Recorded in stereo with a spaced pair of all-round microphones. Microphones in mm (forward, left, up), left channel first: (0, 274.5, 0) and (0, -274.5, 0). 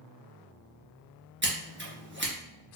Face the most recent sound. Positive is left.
turn(degrees=-20)  # may be behind; listen again after turning